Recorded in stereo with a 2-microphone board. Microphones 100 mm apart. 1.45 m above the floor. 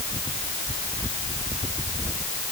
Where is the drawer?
No drawer in this recording.